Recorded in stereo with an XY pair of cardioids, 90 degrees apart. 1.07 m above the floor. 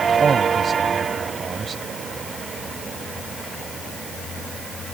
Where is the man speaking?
50° right.